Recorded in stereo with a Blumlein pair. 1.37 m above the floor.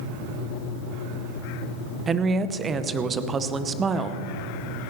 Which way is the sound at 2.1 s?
20° right.